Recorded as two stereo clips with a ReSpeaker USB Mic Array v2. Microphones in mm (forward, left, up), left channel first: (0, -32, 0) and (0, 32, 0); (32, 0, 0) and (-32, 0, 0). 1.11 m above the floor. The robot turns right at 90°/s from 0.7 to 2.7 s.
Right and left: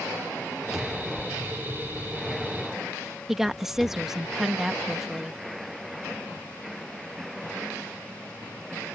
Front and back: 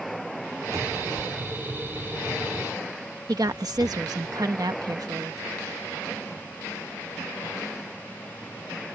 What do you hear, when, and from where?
0.7 s a cupboard door: 175° left; by 4.3 s 10° right
3.3 s a woman speaking: 175° left